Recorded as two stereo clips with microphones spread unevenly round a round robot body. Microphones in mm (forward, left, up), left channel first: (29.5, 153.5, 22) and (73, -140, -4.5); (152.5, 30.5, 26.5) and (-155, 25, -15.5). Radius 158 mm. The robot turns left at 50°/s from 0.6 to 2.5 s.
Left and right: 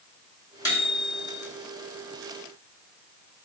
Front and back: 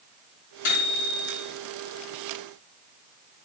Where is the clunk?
No clunk in this recording.